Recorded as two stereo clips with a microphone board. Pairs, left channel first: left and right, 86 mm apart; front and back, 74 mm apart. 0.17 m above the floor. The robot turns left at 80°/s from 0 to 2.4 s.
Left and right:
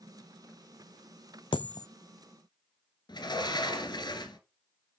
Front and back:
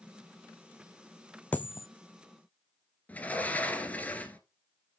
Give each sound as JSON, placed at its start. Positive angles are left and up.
{"t": 1.5, "sound": "a dropped coin", "azimuth_deg": 70, "distance_m": 0.6}
{"t": 3.1, "sound": "a sliding door", "azimuth_deg": 65, "distance_m": 1.7}